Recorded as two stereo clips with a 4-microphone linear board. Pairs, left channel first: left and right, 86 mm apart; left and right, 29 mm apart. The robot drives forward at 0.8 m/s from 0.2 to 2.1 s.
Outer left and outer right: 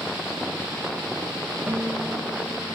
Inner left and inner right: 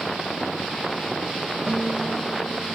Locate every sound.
1.7 s a guitar: 10° right (ahead or behind), 1.6 m